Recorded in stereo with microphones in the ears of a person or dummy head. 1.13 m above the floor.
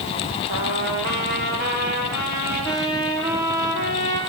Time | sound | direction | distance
0.5 | a trumpet | 55° right (ahead or behind) | 6 m